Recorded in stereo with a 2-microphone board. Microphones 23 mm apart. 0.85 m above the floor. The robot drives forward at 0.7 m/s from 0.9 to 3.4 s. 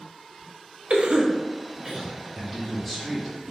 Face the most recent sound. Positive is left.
turn(degrees=0)  # may be behind; listen again after turning